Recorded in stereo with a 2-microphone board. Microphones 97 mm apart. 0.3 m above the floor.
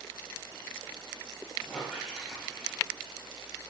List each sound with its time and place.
1.6 s a squeak: 5° left (ahead or behind), 3.5 m